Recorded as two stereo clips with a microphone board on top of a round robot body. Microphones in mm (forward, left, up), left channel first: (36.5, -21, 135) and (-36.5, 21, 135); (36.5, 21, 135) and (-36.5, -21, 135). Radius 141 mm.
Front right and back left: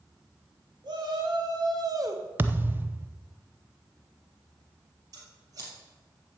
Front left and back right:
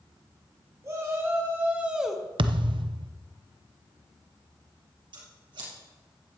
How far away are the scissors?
About 3.5 m.